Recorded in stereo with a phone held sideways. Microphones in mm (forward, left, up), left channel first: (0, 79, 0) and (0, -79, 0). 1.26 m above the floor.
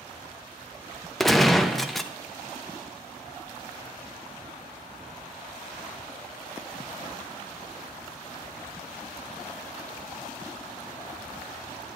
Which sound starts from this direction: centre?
A gunshot, at 1.2 s.